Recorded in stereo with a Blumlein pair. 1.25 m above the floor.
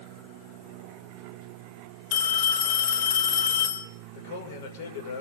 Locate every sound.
2.1 s a phone ringing: 45° left, 4 m
4.1 s a man speaking: 50° left, 5.5 m